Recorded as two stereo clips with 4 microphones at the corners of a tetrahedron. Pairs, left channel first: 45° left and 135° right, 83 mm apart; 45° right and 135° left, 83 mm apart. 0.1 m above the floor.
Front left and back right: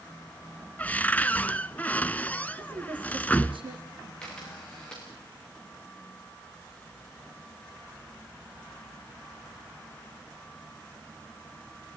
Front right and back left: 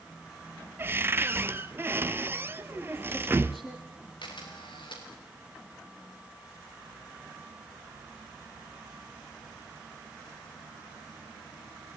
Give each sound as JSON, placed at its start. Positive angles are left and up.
{"t": 0.8, "sound": "a cupboard door", "azimuth_deg": 105, "distance_m": 0.7}
{"t": 2.6, "sound": "a woman speaking", "azimuth_deg": -135, "distance_m": 5.5}
{"t": 4.2, "sound": "a camera shutter", "azimuth_deg": -35, "distance_m": 6.5}